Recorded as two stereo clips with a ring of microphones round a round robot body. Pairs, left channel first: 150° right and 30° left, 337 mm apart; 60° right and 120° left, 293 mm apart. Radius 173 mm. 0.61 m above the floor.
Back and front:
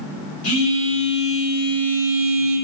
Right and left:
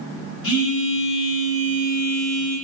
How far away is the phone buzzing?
About 2.0 m.